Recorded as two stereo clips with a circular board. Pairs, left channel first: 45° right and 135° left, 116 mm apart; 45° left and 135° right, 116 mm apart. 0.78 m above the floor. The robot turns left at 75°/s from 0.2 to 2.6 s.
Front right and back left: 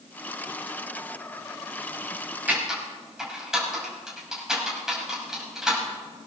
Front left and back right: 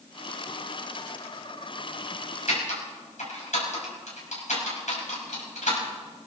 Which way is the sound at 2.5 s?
60° left.